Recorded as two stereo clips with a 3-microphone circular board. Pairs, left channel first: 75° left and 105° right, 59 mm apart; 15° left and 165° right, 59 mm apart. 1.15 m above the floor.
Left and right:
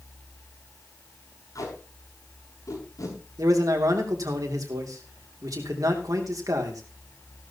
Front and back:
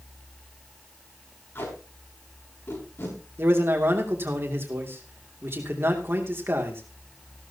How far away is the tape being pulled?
About 6.5 m.